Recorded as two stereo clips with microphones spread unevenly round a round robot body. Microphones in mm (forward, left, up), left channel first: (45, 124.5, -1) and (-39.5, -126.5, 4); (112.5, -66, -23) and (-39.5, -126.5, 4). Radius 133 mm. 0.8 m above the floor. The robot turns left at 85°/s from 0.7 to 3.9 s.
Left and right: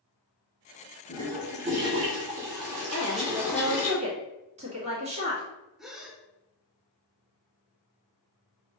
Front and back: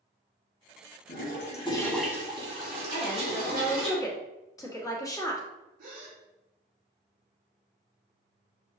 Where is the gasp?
165° left, 0.6 m.